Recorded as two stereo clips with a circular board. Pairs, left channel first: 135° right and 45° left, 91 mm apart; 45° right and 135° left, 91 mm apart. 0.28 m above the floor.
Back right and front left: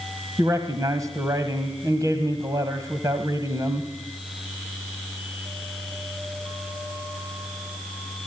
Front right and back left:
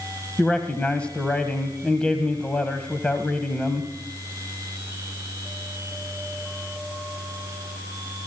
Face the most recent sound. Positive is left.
turn(degrees=25)